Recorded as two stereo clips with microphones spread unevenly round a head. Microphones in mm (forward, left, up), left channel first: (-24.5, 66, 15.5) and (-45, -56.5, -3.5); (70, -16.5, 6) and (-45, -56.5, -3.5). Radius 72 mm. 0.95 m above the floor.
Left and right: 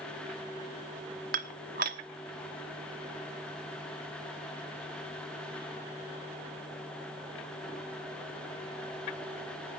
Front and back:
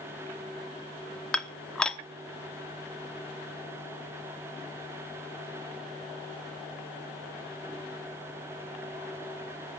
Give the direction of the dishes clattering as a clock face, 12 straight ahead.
2 o'clock.